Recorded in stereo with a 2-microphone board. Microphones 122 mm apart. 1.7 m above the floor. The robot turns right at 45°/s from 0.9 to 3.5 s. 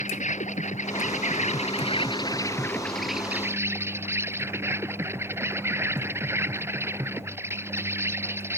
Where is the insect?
85° left; by 8.6 s 160° right.